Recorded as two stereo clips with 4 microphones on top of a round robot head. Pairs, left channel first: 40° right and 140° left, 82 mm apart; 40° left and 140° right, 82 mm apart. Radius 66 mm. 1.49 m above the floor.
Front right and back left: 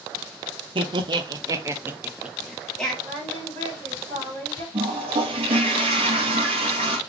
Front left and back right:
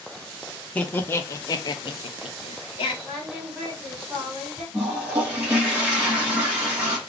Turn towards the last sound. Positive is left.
turn(degrees=140)